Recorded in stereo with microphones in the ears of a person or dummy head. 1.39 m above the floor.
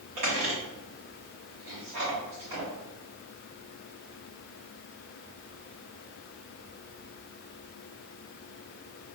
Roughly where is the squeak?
Right.